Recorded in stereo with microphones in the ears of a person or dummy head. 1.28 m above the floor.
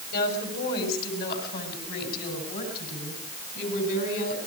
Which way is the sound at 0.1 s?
60° left (ahead or behind).